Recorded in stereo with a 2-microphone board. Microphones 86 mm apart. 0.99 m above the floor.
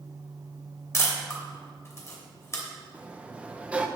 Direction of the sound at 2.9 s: 15° right (ahead or behind).